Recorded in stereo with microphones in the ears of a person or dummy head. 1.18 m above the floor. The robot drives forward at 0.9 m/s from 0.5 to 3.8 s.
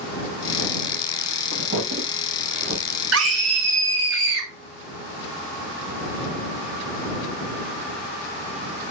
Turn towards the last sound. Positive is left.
turn(degrees=-75)  # may be behind; listen again after turning